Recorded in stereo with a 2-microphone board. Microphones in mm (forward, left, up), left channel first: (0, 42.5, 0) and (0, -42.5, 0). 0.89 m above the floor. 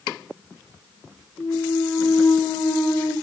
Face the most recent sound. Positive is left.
turn(degrees=60)  # may be behind; listen again after turning